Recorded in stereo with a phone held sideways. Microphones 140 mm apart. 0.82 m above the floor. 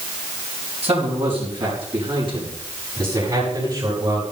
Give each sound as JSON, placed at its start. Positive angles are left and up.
{"t": 0.8, "sound": "a man speaking", "side_deg": -50, "distance_m": 7.0}